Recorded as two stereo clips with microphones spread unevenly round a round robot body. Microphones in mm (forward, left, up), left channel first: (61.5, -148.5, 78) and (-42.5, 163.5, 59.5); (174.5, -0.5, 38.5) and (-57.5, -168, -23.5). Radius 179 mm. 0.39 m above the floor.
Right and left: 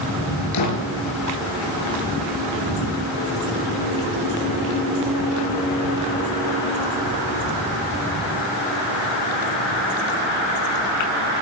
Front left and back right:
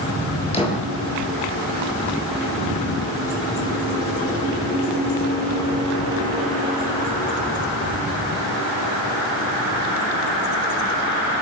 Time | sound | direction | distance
0.5 | a door slam | 35° right | 7.5 m